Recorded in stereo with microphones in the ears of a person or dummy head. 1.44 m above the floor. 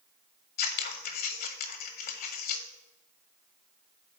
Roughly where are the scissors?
Left.